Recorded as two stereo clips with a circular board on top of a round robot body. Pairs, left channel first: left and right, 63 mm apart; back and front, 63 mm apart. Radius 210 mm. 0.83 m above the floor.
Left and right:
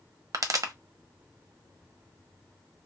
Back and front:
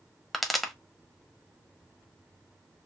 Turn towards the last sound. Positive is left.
turn(degrees=-95)